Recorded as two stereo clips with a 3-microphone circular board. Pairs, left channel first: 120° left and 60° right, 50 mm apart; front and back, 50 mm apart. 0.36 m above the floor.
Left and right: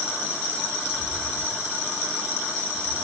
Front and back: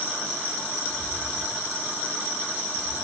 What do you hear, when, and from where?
0.9 s footsteps: 110° right, 5.5 m; by 3.0 s 100° right, 7 m